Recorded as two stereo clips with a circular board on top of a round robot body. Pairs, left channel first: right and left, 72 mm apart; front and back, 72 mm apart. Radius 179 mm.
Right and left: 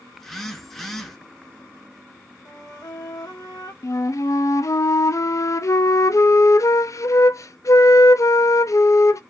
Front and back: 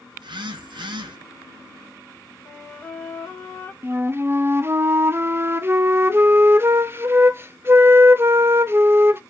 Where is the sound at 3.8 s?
130° right, 0.6 m.